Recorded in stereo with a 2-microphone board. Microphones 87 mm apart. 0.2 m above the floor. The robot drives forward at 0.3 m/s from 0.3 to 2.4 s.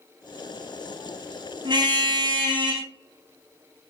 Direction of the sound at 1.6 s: 60° right (ahead or behind).